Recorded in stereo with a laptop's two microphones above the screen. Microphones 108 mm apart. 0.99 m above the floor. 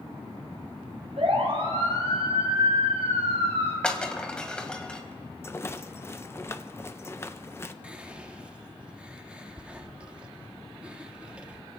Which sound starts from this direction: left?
A rattle, at 5.4 s.